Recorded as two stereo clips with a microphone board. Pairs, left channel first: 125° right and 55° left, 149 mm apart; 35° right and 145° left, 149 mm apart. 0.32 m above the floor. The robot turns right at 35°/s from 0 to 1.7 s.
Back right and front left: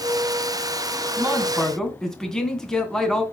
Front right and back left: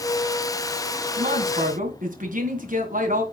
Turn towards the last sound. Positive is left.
turn(degrees=150)